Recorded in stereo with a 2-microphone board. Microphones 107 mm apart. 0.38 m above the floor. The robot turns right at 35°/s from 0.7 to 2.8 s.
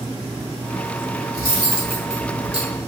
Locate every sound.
1.3 s cutlery clinking: 35° right (ahead or behind), 1.2 m; by 2.8 s 65° right (ahead or behind), 1.2 m